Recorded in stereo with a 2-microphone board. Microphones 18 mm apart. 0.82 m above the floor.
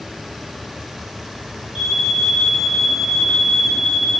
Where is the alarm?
15° right (ahead or behind), 3.5 m.